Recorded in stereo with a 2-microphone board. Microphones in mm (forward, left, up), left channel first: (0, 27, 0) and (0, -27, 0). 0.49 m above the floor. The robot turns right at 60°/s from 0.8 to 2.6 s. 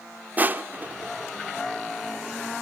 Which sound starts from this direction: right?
Crushing, at 0.4 s.